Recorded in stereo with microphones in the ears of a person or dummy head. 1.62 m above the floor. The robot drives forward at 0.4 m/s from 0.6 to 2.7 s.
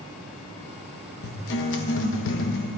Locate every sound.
1.2 s a guitar: 55° left (ahead or behind), 1.3 m; by 2.7 s 65° left (ahead or behind), 1.2 m